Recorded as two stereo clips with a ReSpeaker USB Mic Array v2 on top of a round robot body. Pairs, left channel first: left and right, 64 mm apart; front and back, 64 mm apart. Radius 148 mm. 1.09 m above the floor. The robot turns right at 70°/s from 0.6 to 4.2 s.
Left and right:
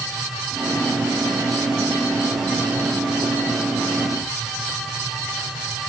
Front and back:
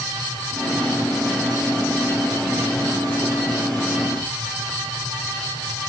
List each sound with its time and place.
Only background noise.